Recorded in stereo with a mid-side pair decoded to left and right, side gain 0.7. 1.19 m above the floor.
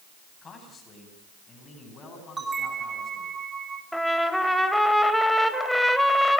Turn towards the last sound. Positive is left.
turn(degrees=0)